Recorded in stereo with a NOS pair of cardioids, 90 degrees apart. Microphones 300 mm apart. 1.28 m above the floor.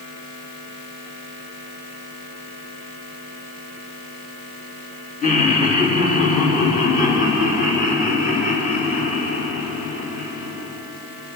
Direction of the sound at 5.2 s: 25° left.